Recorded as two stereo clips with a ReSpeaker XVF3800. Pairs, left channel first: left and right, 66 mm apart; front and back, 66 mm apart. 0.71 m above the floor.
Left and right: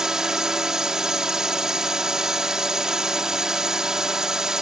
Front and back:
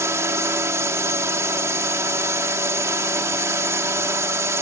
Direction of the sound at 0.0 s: 170° right.